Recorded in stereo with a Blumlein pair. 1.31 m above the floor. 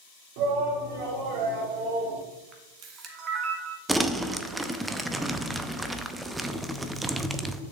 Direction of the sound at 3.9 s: 5° right.